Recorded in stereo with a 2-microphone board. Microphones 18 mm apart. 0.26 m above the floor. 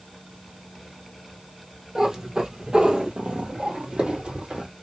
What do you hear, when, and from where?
1.9 s a cat meowing: 35° right (ahead or behind), 1.3 m; by 4.7 s 70° right (ahead or behind), 1.6 m